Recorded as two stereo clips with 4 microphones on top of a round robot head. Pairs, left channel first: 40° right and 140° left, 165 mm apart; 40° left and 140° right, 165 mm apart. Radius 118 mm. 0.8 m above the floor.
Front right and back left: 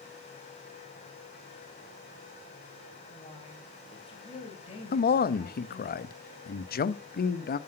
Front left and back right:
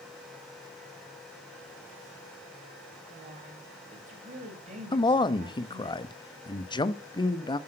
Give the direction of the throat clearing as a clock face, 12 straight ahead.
I don't hear throat clearing.